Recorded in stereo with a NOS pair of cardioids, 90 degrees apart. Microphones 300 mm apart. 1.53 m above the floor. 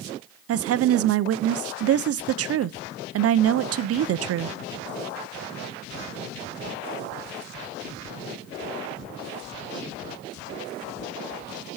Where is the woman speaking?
50° right, 0.6 m.